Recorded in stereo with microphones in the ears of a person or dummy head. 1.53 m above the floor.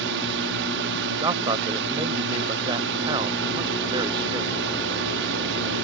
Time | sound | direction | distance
0.0 | a drone | 65° right (ahead or behind) | ?
1.2 | a man speaking | 25° right (ahead or behind) | ?